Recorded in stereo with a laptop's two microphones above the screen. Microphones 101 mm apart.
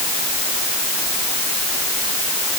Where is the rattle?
No rattle in this recording.